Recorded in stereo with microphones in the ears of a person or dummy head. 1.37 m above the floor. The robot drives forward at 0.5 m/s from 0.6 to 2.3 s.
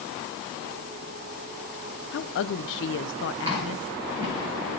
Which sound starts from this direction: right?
Chewing, at 3.5 s.